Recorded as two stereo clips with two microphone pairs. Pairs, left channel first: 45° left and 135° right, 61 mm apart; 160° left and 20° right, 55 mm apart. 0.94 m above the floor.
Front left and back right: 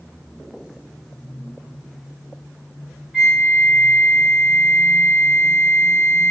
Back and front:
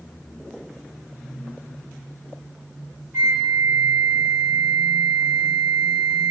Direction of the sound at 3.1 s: 65° right.